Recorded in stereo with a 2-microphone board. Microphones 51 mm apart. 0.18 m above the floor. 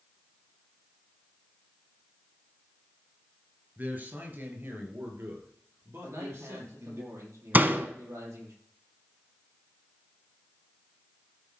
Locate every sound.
3.8 s a man speaking: 35° right (ahead or behind), 3 m; by 7.0 s 65° right (ahead or behind), 4.5 m
6.0 s a man speaking: 65° right (ahead or behind), 6 m
7.5 s a door slam: 35° right (ahead or behind), 1.0 m